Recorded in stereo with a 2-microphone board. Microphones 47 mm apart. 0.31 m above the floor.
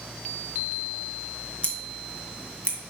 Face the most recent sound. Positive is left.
turn(degrees=25)  # may be behind; listen again after turning